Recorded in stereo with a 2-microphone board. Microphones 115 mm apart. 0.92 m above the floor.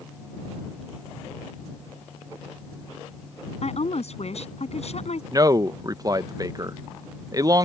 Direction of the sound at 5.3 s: 30° right (ahead or behind).